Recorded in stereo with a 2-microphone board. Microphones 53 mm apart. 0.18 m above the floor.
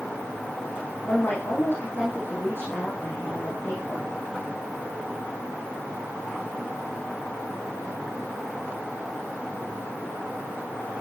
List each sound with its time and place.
1.1 s a woman speaking: 40° left (ahead or behind), 8.5 m